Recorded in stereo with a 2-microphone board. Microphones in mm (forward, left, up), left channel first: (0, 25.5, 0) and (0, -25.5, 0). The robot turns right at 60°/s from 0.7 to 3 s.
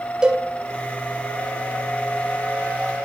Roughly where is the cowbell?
Centre.